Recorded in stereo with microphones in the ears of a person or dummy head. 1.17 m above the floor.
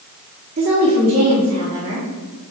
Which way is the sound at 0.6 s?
35° right (ahead or behind).